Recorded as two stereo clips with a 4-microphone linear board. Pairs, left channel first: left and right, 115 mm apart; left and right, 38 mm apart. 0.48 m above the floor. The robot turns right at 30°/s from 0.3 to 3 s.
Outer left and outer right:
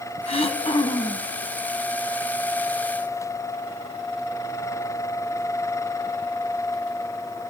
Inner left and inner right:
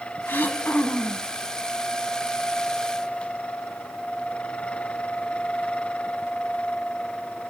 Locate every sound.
0.3 s throat clearing: 60° left (ahead or behind), 0.9 m; by 1.3 s 30° left (ahead or behind), 0.9 m